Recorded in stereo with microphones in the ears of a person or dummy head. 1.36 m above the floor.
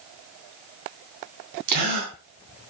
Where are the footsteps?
No footsteps in this recording.